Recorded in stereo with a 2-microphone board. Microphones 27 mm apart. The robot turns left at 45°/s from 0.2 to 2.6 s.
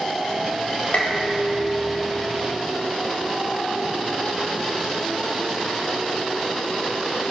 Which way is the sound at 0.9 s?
65° left.